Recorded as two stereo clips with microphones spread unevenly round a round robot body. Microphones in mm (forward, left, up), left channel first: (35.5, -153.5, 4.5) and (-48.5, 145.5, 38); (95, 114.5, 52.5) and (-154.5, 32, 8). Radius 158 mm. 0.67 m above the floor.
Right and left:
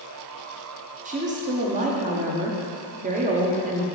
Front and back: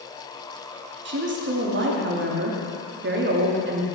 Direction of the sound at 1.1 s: 175° left.